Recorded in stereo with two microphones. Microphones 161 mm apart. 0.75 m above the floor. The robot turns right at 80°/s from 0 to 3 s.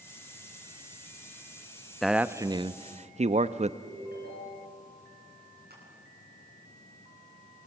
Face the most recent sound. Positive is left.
turn(degrees=-80)